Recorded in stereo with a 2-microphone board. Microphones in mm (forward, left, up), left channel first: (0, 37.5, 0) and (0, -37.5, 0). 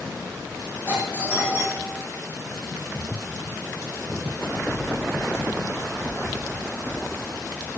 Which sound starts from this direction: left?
A doorbell, at 0.9 s.